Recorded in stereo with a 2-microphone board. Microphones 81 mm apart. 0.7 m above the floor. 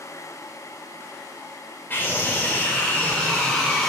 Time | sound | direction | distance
1.9 | a scream | 25° left (ahead or behind) | 3 m